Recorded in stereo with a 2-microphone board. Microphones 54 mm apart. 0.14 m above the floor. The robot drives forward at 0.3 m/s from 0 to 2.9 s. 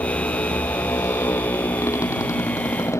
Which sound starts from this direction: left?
A motorcycle, at 0.0 s.